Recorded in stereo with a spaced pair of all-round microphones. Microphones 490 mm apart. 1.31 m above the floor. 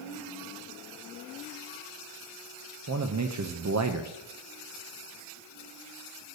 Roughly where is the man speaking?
Right.